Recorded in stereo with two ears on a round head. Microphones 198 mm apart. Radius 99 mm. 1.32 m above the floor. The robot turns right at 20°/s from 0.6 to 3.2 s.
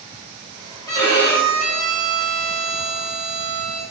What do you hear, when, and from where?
0.9 s a violin: 165° left, 1.3 m; by 3.8 s 150° right, 1.3 m